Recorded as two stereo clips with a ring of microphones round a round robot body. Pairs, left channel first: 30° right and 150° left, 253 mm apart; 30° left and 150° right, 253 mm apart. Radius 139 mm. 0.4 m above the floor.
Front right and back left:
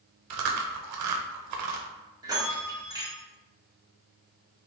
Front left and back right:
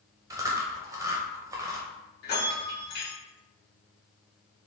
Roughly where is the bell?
Left.